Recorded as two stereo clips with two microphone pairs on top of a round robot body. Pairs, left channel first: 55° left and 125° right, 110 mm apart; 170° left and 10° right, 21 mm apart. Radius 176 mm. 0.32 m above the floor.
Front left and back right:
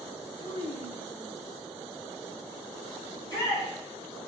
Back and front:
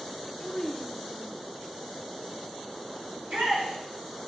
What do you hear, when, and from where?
0.4 s a child speaking: 80° left, 1.4 m; by 1.4 s 60° left, 2.5 m
3.1 s a shout: straight ahead, 3.5 m